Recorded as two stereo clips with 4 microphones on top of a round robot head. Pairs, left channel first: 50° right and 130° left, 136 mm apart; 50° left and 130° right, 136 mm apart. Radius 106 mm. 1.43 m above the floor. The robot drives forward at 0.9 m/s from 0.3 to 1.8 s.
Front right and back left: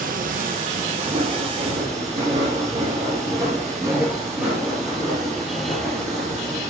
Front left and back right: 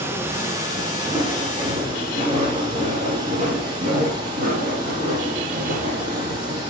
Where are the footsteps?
160° left, 3.5 m; by 6.6 s 125° right, 4.5 m.